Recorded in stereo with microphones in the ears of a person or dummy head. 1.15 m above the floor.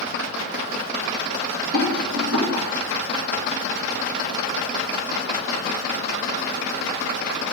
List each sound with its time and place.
1.7 s a rattle: 75° right (ahead or behind), 2.5 m